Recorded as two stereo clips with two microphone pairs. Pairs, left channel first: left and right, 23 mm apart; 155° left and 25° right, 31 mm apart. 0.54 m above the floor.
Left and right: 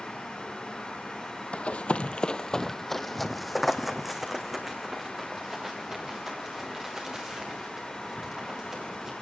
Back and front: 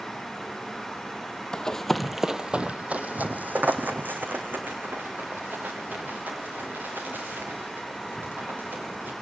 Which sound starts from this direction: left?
Running footsteps, at 1.5 s.